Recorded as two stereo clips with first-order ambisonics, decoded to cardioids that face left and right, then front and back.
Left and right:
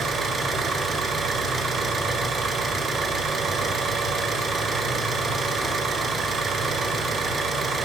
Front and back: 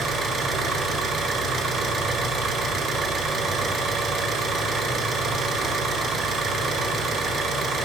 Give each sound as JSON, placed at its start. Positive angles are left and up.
{"t": 0.0, "sound": "an engine running", "azimuth_deg": -145, "distance_m": 1.2}